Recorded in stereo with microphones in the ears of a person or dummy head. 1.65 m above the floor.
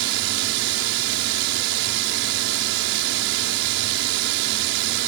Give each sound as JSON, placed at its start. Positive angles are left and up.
{"t": 0.0, "sound": "a drone", "side_deg": -60}